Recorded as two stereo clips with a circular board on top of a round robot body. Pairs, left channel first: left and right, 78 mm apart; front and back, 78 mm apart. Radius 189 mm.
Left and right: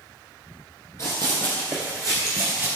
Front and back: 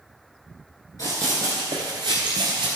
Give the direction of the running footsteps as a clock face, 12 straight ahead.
11 o'clock.